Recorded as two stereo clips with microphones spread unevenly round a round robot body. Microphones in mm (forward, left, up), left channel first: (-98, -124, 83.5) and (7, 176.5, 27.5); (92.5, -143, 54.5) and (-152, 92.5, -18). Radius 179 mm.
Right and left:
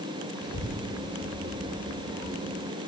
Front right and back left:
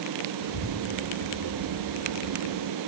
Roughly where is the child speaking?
Ahead right.